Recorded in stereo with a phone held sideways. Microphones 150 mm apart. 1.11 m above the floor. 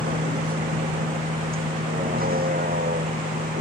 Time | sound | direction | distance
0.0 | a vehicle | 70° right (ahead or behind) | ?